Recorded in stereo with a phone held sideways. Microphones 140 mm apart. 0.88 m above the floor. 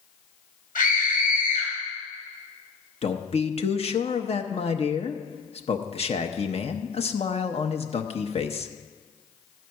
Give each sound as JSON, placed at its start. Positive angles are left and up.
{"t": 0.8, "sound": "a scream", "side_deg": 75, "distance_m": 5.0}
{"t": 3.0, "sound": "a man speaking", "side_deg": 45, "distance_m": 0.8}